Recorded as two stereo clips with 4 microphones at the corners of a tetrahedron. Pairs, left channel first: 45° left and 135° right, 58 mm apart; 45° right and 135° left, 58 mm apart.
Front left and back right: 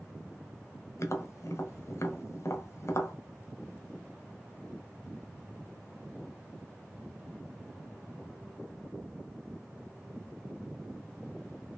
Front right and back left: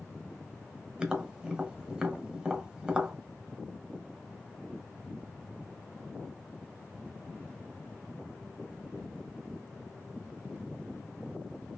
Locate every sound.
1.0 s tapping: 65° left, 1.3 m